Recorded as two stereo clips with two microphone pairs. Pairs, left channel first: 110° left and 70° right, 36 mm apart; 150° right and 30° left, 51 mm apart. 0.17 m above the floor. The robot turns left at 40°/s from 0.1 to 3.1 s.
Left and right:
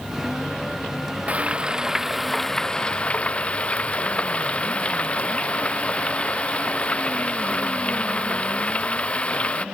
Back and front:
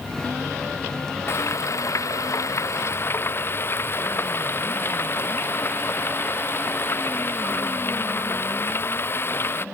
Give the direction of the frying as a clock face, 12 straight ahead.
4 o'clock.